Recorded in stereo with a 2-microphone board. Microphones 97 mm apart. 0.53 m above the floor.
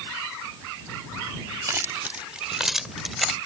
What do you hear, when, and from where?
1.7 s keys jangling: 30° right (ahead or behind); by 3.4 s centre (ahead or behind)